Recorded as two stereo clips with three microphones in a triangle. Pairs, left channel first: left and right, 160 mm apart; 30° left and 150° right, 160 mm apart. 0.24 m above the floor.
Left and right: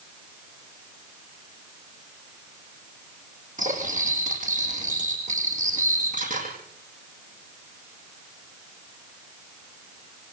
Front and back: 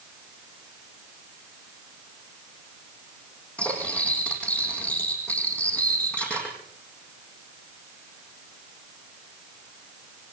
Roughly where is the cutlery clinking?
Ahead right.